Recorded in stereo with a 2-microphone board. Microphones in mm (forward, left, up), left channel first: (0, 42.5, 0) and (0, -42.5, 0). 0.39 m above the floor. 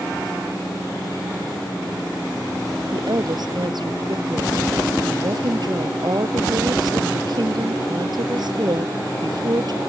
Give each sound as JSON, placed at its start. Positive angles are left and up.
{"t": 2.9, "sound": "a woman speaking", "side_deg": -60}